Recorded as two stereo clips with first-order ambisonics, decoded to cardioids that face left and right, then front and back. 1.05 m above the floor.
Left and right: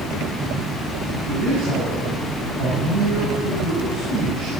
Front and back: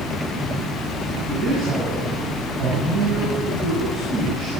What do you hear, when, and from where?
1.3 s a man speaking: 120° right, 9 m